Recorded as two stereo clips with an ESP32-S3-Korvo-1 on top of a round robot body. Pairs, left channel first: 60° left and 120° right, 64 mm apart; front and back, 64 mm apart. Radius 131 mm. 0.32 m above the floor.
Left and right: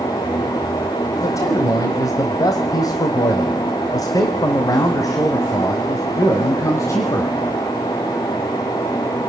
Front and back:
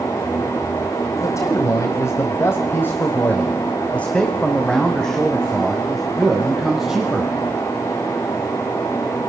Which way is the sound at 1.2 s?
30° left.